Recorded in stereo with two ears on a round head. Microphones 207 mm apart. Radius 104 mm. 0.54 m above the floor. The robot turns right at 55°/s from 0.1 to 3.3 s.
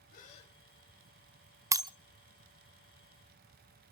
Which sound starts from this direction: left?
A gasp, at 0.1 s.